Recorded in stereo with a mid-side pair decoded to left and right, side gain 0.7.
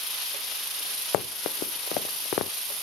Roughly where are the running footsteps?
Ahead left.